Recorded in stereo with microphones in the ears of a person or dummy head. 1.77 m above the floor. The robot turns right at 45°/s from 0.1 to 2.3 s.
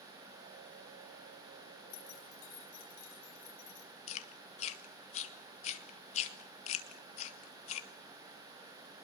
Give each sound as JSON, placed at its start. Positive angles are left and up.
{"t": 1.9, "sound": "keys jangling", "side_deg": 55, "distance_m": 5.0}
{"t": 4.1, "sound": "chewing", "side_deg": 35, "distance_m": 1.7}